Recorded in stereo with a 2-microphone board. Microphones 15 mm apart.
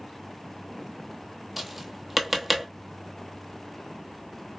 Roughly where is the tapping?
Centre.